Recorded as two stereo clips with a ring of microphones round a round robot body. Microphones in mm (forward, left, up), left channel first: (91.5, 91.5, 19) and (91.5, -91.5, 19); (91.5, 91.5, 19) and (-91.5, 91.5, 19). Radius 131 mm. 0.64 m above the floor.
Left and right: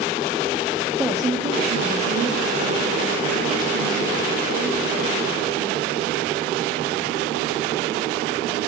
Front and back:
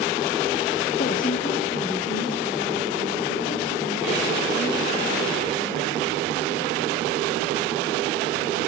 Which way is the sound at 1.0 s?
5° right.